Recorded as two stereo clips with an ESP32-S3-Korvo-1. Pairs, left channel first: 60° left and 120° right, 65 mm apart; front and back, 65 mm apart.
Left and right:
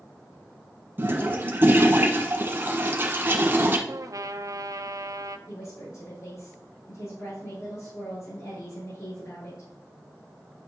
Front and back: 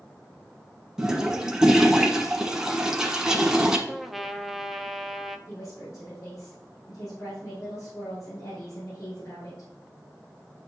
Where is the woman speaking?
40° left, 4.5 m.